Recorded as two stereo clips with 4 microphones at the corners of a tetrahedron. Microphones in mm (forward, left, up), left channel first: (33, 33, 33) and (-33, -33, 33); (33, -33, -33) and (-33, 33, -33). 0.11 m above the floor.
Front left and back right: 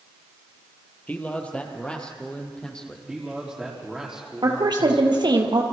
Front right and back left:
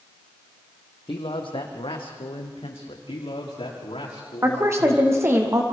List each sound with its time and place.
1.1 s a man speaking: 30° right, 3 m; by 3.0 s 40° right, 4.5 m
3.1 s a man speaking: 50° right, 6 m
4.4 s a woman speaking: 165° right, 3.5 m